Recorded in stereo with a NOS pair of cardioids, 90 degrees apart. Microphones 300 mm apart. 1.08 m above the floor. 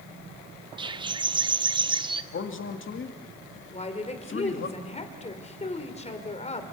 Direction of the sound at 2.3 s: 45° left.